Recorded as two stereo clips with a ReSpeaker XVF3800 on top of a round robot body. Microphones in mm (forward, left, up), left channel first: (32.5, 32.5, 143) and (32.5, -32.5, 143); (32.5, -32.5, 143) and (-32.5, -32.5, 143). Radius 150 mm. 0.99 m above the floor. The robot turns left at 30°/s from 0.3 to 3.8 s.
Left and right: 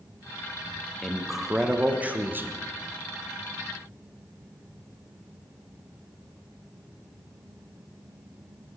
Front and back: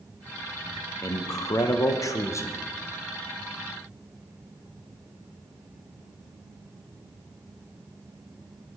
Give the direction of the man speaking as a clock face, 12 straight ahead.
12 o'clock.